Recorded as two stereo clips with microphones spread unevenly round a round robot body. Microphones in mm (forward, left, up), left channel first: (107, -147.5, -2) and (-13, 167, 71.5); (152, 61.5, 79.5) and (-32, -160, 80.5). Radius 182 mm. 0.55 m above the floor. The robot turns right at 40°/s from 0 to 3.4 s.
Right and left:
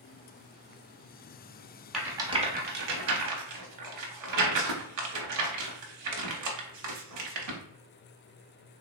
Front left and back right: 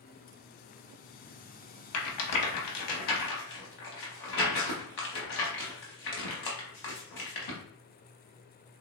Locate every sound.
1.9 s a rattle: 25° left, 0.7 m; by 7.6 s 85° left, 0.7 m